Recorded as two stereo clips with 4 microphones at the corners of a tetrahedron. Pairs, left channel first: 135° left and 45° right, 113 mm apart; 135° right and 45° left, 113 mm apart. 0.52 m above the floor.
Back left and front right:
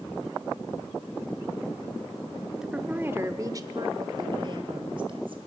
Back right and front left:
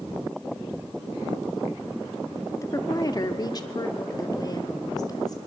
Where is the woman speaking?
125° right, 1.1 m; by 5.4 s 80° right, 3 m.